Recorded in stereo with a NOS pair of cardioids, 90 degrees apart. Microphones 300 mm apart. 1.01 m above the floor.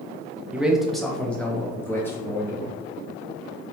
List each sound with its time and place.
0.5 s a man speaking: 5° right, 0.6 m; by 2.7 s 10° left, 1.7 m